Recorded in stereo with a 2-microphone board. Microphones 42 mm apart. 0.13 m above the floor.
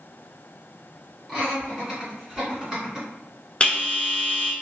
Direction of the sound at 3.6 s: 30° left (ahead or behind).